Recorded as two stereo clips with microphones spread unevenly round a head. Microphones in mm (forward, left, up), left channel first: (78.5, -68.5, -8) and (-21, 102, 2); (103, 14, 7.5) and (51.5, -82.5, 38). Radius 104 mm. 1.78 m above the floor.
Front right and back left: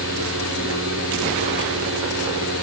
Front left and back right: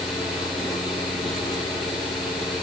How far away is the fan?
About 8 m.